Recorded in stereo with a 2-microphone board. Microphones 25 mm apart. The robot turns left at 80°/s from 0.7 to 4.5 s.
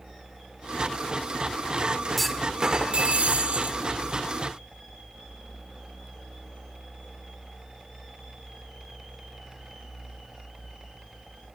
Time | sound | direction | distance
2.2 | a clunk | 5° left | 1.4 m